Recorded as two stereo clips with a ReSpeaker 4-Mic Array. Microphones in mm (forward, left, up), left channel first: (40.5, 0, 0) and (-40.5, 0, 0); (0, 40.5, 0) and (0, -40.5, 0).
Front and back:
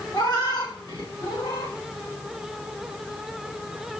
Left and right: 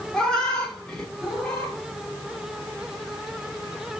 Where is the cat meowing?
10° left, 1.6 m.